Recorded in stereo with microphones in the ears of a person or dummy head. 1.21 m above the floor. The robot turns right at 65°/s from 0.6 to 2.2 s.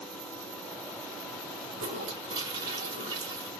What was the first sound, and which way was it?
A toilet flushing, 55° right.